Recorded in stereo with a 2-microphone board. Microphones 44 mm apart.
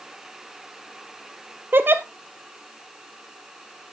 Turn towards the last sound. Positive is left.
turn(degrees=-55)  # may be behind; listen again after turning